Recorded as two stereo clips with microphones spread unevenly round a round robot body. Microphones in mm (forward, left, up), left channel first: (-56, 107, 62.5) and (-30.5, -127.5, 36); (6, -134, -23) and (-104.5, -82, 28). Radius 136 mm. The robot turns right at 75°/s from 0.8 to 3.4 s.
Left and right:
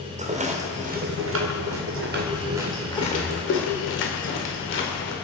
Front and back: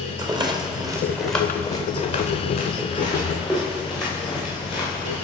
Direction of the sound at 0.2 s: 140° right.